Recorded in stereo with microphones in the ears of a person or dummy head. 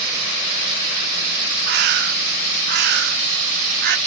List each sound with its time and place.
1.7 s a bird: 60° right (ahead or behind)